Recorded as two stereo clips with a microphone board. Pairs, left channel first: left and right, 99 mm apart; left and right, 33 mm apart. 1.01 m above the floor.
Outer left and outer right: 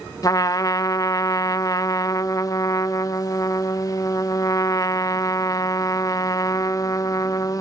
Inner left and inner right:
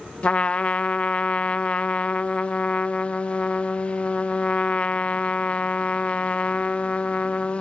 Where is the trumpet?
35° left (ahead or behind), 0.5 m.